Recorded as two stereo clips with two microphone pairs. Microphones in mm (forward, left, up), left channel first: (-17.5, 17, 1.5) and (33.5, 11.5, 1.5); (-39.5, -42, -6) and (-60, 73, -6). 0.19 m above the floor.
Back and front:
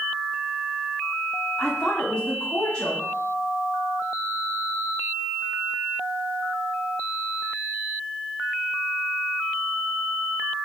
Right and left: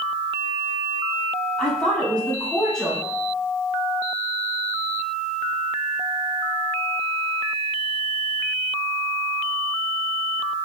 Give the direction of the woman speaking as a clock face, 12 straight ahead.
5 o'clock.